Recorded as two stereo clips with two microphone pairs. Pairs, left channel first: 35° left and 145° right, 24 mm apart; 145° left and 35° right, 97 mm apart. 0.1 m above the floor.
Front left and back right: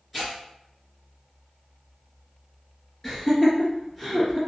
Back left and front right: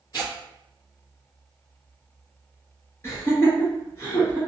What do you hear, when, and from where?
0.1 s tearing paper: 120° left, 2.0 m
3.0 s laughter: 105° left, 2.0 m